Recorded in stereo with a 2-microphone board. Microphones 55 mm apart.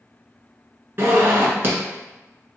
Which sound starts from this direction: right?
A zipper, at 1.0 s.